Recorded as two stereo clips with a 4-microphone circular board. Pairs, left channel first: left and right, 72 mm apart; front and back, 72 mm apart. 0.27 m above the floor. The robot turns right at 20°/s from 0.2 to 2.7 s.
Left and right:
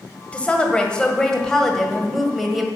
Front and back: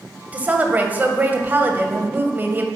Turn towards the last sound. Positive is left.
turn(degrees=-175)